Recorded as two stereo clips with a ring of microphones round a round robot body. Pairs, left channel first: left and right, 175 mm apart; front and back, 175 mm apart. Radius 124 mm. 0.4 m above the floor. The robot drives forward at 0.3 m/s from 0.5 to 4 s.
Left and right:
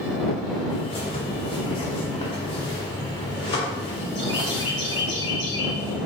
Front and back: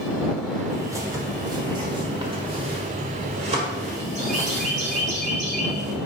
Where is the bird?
120° left, 1.6 m; by 6.0 s 150° left, 2 m.